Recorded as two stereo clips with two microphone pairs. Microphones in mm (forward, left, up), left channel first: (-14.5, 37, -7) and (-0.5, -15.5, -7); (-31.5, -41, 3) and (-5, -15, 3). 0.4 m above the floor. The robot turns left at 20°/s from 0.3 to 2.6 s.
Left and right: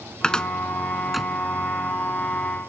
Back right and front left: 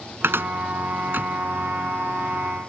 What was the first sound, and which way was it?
A cupboard door, 30° left.